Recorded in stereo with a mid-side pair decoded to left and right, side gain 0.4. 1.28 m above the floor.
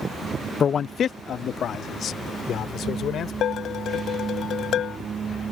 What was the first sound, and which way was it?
A man speaking, 50° left.